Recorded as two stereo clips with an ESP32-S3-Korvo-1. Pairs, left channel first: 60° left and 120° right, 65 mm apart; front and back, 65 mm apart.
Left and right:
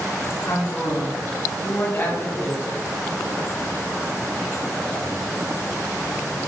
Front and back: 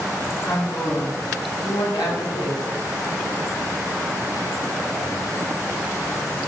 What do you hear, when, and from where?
0.5 s a woman speaking: 20° left, 3 m; by 2.6 s 5° right, 2.5 m